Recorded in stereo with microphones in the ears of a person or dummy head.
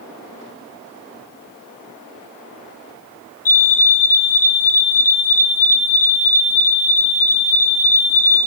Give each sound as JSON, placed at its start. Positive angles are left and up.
{"t": 3.5, "sound": "a fire alarm", "side_deg": 45, "distance_m": 3.0}